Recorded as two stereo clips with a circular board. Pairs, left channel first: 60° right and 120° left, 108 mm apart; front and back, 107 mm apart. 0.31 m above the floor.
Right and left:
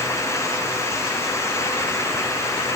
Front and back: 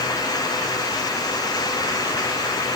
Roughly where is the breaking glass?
No breaking glass in this recording.